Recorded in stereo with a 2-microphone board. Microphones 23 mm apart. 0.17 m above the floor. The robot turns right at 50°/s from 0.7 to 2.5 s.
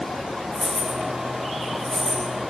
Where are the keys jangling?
80° right, 5.5 m; by 2.2 s 15° right (ahead or behind), 5.5 m.